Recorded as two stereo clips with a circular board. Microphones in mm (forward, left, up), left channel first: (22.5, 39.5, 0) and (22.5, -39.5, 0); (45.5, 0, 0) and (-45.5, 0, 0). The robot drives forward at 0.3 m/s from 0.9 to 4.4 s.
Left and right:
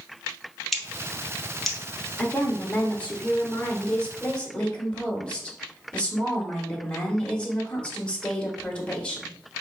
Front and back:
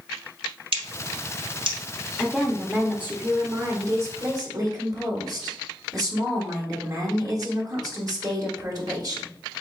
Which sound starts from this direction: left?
A woman speaking, at 2.2 s.